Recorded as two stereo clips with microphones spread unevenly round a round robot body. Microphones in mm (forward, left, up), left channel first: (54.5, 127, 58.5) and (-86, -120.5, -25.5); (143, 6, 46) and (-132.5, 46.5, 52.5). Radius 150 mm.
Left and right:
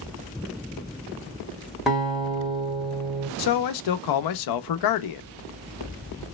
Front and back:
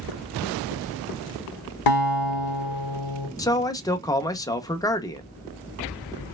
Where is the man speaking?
65° left, 0.6 m.